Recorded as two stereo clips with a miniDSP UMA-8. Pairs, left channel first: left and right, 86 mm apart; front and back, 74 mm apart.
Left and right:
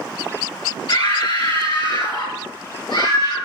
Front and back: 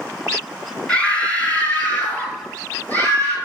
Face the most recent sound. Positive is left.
turn(degrees=65)